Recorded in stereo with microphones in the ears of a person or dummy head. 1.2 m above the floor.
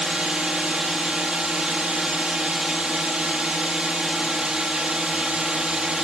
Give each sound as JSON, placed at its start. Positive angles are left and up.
{"t": 0.0, "sound": "a drone", "side_deg": 0}